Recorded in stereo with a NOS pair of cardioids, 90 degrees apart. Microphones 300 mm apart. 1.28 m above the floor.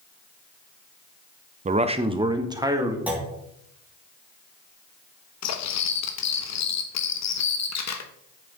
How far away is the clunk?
About 2 m.